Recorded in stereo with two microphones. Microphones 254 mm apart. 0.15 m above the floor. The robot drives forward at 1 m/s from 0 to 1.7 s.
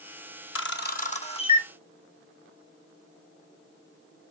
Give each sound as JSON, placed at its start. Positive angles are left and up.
{"t": 0.6, "sound": "a camera shutter", "side_deg": 60, "distance_m": 0.6}